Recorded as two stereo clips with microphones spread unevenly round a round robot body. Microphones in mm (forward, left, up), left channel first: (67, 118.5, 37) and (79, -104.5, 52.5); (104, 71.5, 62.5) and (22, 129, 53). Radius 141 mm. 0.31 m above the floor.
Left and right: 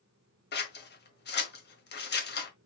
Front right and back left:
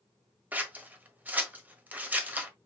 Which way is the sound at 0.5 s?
80° left.